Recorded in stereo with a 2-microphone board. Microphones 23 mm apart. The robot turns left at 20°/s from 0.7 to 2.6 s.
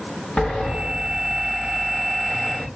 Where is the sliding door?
120° left, 1.5 m; by 2.7 s 85° left, 1.5 m.